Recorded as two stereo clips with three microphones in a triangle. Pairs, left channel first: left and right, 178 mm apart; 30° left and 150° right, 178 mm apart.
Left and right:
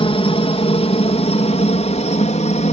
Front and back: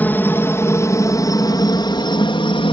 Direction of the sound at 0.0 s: 100° left.